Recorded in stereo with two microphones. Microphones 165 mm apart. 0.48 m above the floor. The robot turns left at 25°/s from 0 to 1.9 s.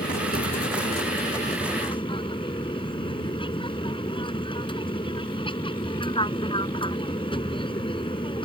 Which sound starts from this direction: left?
An aircraft, at 0.0 s.